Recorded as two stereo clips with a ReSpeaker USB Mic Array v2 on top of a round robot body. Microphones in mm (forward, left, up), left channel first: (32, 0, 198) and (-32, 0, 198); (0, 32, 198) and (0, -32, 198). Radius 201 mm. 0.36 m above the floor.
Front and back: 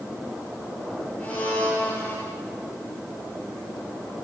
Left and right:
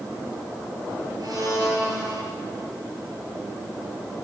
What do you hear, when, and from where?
1.2 s a blender: 75° right, 7.5 m